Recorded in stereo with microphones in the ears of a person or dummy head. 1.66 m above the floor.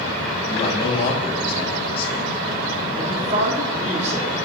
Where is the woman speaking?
40° right (ahead or behind), 3 m.